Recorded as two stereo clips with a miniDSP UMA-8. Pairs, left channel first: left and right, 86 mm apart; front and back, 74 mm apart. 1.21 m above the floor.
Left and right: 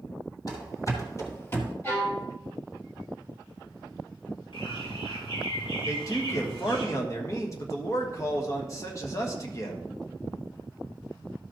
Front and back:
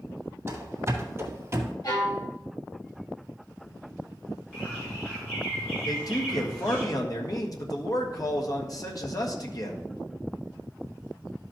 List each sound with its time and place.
0.5 s running footsteps: 125° left, 2.5 m; by 1.7 s 145° left, 1.5 m
1.8 s a violin: 30° left, 3 m
4.5 s a bird: 80° left, 4.5 m
5.8 s a man speaking: 35° left, 1.5 m